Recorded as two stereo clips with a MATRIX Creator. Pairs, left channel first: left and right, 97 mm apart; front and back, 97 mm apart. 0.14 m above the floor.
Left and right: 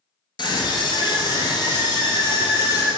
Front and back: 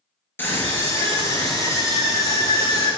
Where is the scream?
65° left, 2.5 m; by 2.9 s 45° left, 4 m.